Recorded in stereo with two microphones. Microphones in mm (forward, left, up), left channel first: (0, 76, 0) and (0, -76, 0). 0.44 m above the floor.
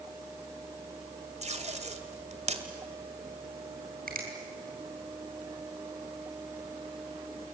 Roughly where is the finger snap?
Right.